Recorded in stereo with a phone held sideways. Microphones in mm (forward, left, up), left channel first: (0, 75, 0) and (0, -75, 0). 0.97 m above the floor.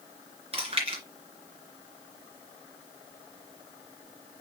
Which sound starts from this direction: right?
Chewing, at 0.5 s.